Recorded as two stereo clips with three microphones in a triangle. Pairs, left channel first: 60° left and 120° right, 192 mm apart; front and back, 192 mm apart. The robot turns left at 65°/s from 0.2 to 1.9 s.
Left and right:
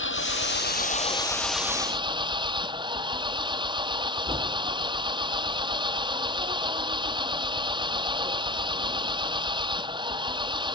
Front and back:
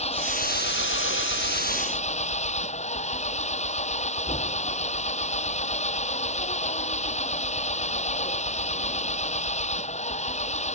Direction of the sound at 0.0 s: 55° left.